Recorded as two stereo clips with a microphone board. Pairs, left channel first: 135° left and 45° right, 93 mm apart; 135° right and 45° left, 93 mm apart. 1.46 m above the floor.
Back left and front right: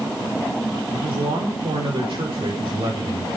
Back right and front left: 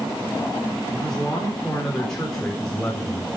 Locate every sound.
0.9 s a man speaking: 50° right, 4.5 m